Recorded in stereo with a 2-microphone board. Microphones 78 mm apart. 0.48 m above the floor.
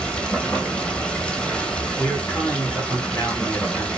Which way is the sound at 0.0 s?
10° left (ahead or behind).